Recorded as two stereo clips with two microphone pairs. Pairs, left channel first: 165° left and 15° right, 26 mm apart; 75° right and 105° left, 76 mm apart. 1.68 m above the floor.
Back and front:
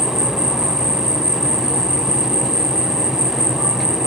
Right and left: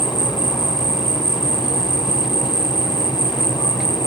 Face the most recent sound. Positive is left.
turn(degrees=-75)